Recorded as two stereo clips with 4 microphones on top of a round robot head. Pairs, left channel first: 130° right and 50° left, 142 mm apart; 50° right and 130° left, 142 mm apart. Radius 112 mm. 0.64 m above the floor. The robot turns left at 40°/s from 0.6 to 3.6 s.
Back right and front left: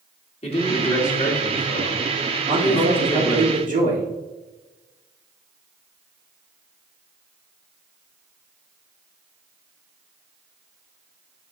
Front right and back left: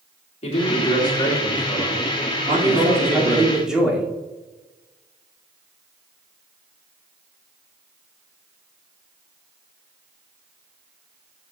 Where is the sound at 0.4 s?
90° right, 2 m; by 3.5 s 155° left, 2 m.